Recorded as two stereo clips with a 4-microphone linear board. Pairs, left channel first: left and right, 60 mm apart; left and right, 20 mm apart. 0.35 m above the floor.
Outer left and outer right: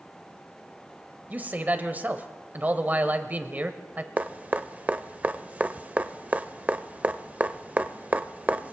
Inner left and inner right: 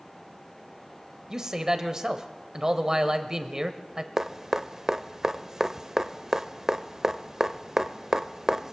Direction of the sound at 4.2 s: 25° right (ahead or behind).